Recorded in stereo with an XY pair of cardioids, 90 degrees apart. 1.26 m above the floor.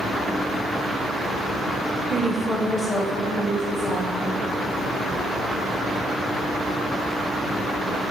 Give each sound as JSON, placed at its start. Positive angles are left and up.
{"t": 2.1, "sound": "a woman speaking", "azimuth_deg": -40, "distance_m": 0.5}